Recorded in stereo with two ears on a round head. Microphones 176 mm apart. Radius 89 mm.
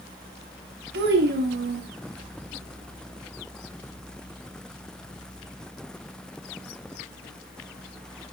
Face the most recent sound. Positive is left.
turn(degrees=-55)  # may be behind; listen again after turning